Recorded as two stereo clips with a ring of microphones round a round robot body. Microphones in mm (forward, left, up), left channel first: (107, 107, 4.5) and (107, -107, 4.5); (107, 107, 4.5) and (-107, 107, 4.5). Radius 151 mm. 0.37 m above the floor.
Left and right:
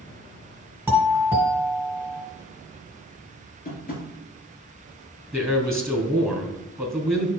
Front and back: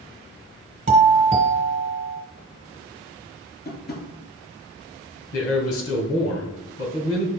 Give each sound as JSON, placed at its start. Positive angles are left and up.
{"t": 0.9, "sound": "a doorbell", "azimuth_deg": -160, "distance_m": 1.9}
{"t": 3.6, "sound": "tapping", "azimuth_deg": 45, "distance_m": 3.0}
{"t": 5.3, "sound": "a man speaking", "azimuth_deg": 0, "distance_m": 3.0}